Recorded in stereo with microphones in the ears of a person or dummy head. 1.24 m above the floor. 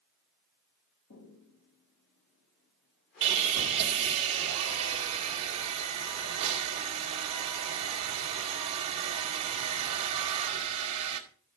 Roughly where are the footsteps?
Left.